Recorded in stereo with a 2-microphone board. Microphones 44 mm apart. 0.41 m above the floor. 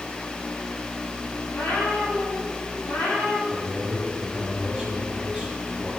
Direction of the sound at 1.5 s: 85° left.